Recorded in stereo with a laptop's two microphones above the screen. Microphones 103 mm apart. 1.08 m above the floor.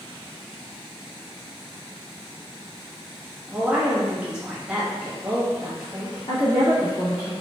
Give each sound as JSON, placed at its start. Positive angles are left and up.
{"t": 3.5, "sound": "a woman speaking", "side_deg": -10, "distance_m": 1.1}
{"t": 6.3, "sound": "a woman speaking", "side_deg": 75, "distance_m": 1.7}